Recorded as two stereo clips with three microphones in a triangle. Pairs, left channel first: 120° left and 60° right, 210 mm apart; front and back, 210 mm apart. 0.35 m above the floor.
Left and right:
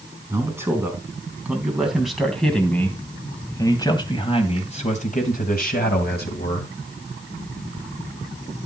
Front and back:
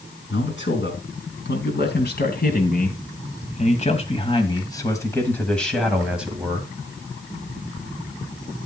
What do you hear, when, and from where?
0.3 s a man speaking: 15° left, 4 m; by 6.8 s 105° left, 3 m